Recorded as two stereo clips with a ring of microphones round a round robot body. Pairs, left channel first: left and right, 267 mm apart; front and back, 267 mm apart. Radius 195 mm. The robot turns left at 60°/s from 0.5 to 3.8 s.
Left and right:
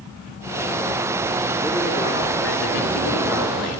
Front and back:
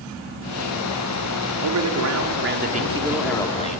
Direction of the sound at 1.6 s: 170° right.